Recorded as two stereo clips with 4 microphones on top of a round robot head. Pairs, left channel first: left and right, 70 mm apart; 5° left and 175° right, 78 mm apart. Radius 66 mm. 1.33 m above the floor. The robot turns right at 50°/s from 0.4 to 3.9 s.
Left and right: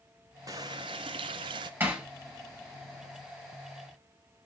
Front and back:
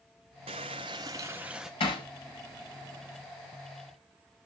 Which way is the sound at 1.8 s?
30° right.